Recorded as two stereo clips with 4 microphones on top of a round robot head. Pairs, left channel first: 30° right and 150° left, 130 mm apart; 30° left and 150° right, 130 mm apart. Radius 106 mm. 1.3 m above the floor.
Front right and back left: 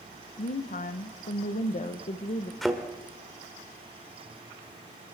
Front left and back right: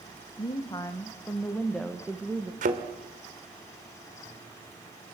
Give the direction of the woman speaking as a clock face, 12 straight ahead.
1 o'clock.